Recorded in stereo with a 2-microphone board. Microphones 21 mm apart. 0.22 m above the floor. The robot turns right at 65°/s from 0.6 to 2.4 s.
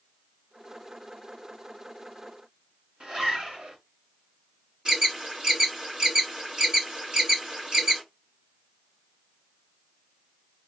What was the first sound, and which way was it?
A zipper, 55° right (ahead or behind).